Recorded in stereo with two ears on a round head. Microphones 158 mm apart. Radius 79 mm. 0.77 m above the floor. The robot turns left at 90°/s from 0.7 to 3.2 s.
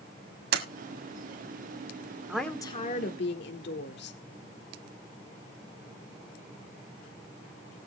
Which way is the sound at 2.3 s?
170° right.